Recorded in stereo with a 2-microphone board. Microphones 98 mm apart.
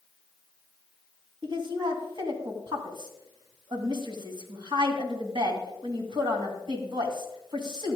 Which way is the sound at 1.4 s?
55° right (ahead or behind).